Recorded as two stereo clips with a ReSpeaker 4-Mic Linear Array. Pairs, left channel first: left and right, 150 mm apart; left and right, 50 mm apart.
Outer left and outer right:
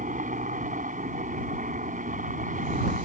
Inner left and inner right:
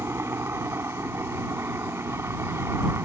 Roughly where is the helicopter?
Right.